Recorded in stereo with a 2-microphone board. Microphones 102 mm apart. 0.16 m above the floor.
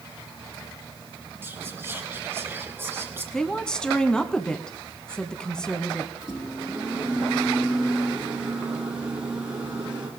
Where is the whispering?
25° right (ahead or behind), 2 m.